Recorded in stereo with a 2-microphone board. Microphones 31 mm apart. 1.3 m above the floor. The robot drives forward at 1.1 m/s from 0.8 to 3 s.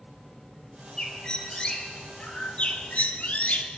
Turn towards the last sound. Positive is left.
turn(degrees=50)  # may be behind; listen again after turning